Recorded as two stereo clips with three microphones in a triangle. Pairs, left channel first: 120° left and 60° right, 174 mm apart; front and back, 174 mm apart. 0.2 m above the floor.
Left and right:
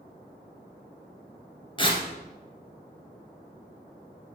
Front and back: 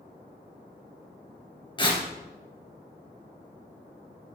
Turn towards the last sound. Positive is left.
turn(degrees=60)